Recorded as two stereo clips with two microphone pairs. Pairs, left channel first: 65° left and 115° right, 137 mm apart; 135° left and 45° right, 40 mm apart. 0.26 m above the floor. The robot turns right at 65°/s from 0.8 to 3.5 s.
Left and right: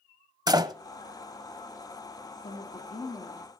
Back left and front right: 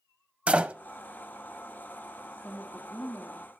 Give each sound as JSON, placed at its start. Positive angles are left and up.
{"t": 0.5, "sound": "a door slam", "azimuth_deg": -80, "distance_m": 0.7}
{"t": 2.3, "sound": "a woman speaking", "azimuth_deg": 60, "distance_m": 5.0}